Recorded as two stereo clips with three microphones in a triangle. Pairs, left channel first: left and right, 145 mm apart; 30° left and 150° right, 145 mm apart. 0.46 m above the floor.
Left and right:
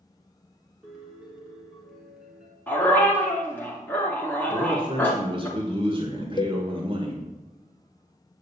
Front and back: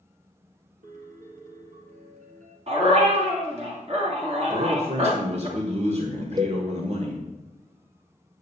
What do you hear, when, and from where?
0.8 s a piano: 175° right, 3 m
2.7 s a dog barking: 165° left, 3 m
4.5 s a man speaking: 135° right, 1.5 m
6.4 s a cowbell: 150° left, 0.8 m